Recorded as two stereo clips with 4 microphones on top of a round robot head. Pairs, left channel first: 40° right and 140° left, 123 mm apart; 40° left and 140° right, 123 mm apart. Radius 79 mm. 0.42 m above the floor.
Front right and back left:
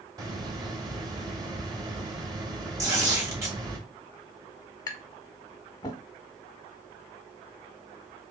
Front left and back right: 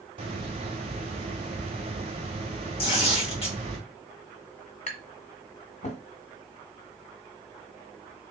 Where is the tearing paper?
75° left, 2.5 m.